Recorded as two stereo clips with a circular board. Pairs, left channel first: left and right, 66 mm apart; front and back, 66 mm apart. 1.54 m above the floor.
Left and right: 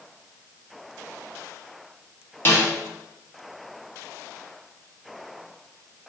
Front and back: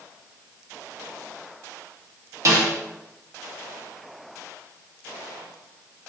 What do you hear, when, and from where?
2.5 s a snare drum: 140° left, 0.7 m